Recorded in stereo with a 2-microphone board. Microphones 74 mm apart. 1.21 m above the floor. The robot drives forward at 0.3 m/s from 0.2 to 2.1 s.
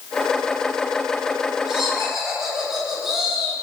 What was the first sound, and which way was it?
Laughter, 5° right (ahead or behind).